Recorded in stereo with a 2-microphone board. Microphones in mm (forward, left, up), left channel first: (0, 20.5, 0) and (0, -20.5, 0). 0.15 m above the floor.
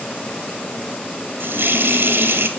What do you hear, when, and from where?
1.4 s a running tap: 65° right (ahead or behind), 1.9 m